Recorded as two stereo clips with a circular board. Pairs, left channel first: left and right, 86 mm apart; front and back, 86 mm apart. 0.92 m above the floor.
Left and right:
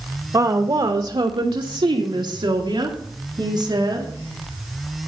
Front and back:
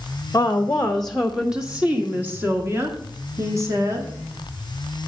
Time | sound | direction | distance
0.3 | a woman speaking | 55° right | 0.7 m